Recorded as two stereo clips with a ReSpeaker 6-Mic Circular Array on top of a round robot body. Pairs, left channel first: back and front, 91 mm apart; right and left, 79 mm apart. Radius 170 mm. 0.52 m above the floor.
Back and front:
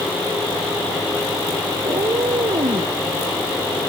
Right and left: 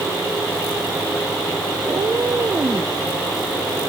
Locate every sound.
1.8 s a cat meowing: 35° left; by 2.9 s 30° left